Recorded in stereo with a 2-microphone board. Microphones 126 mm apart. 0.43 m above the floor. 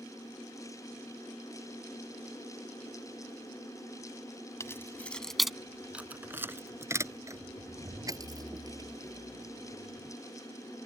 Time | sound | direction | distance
4.6 | keys jangling | 25° left (ahead or behind) | ?